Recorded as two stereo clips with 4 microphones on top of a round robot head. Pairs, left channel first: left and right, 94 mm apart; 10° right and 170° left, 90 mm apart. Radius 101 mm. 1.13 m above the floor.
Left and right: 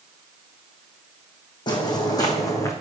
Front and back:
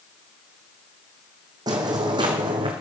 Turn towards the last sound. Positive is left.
turn(degrees=145)